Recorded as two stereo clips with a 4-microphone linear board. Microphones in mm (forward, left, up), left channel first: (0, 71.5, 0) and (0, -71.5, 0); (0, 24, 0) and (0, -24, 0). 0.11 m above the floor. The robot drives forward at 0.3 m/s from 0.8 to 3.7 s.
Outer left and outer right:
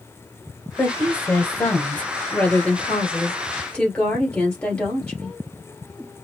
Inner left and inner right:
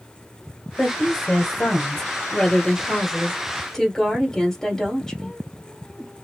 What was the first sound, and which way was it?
A woman speaking, 15° left (ahead or behind).